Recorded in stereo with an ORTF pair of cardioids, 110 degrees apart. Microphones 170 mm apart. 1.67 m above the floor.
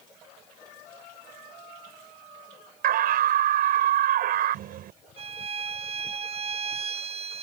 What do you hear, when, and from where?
2.8 s a scream: 65° right
5.2 s a violin: 40° right